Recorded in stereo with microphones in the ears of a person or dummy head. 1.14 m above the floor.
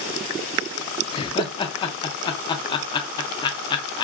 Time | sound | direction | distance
1.1 | laughter | 25° left (ahead or behind) | 0.6 m